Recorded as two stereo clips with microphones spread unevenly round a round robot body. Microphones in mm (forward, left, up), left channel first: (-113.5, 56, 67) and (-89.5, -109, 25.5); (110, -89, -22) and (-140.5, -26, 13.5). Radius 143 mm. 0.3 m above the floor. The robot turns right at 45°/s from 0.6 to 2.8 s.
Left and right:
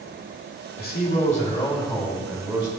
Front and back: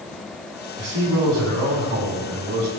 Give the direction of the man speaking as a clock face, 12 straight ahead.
8 o'clock.